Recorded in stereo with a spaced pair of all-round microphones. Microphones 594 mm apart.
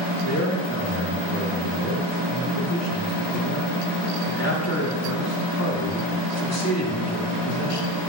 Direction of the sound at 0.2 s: 25° left (ahead or behind).